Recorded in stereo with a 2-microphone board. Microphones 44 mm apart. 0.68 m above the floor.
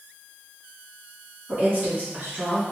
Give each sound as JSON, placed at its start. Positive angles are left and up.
{"t": 1.5, "sound": "a woman speaking", "side_deg": -45, "distance_m": 1.6}